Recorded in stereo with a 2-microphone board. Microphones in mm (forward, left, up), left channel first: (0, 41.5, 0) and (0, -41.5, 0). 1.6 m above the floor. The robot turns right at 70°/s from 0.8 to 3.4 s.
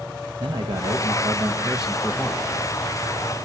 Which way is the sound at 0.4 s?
80° right.